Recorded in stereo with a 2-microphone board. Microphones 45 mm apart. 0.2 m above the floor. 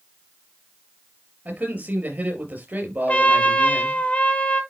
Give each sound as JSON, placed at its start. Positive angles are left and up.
{"t": 1.4, "sound": "a man speaking", "side_deg": -45, "distance_m": 4.5}
{"t": 3.1, "sound": "a trumpet", "side_deg": 30, "distance_m": 1.3}